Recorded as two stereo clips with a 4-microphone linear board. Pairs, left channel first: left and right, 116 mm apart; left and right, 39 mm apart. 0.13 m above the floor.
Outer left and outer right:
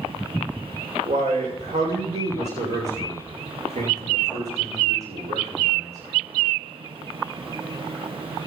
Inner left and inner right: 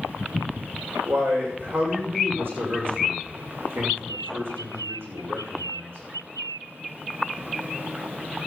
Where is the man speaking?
65° right (ahead or behind), 7 m.